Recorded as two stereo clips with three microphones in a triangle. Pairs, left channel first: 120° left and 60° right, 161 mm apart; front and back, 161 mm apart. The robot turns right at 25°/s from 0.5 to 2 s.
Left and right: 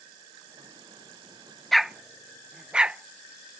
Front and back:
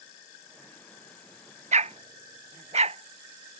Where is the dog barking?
150° right; by 3.6 s 145° right.